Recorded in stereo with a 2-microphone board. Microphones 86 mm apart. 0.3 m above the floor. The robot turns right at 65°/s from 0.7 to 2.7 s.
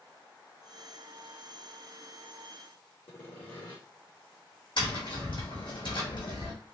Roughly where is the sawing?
Left.